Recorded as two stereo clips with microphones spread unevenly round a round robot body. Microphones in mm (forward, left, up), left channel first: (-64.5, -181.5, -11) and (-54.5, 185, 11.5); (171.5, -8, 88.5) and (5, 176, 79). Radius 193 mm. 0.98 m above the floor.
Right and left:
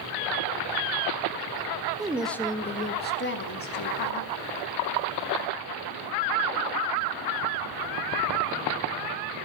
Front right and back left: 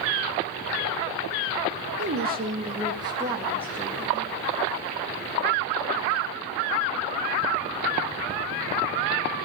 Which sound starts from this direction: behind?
A woman speaking, at 2.0 s.